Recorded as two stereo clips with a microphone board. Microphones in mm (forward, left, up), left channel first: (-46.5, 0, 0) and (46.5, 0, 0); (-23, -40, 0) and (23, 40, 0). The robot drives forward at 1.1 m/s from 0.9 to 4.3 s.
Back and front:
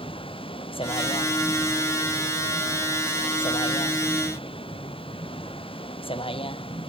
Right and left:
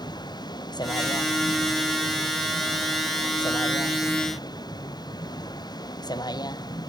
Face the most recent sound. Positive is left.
turn(degrees=-165)